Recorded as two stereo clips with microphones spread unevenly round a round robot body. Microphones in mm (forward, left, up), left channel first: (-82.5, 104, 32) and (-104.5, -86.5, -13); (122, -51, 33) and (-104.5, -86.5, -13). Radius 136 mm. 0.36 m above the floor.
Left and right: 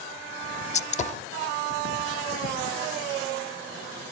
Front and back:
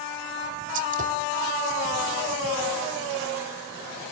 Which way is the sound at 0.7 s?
145° left.